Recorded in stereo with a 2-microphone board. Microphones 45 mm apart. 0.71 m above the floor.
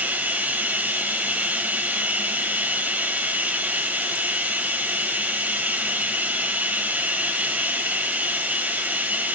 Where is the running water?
35° right (ahead or behind), 1.0 m.